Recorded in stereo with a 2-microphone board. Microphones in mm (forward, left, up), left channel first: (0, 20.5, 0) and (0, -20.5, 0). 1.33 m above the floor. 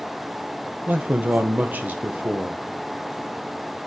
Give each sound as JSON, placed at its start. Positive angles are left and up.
{"t": 0.9, "sound": "a man speaking", "side_deg": -45, "distance_m": 0.9}